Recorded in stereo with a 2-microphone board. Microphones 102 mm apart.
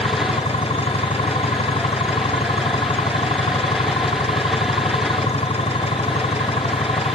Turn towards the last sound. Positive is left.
turn(degrees=75)  # may be behind; listen again after turning